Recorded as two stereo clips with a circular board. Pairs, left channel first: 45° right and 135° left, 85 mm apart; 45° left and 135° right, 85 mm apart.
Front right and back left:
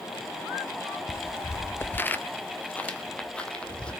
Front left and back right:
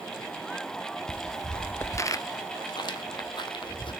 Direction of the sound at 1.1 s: 85° right.